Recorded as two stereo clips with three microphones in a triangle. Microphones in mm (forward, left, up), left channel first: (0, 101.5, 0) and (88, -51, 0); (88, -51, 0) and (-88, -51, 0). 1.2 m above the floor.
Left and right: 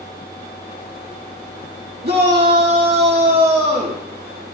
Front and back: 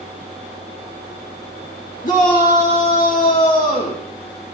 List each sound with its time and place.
2.0 s a shout: 40° right, 1.9 m